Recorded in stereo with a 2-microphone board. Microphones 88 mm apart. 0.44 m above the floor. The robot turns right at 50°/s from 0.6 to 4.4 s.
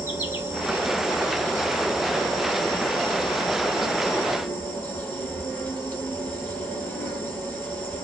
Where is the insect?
25° right, 1.1 m; by 8.0 s 165° left, 1.1 m.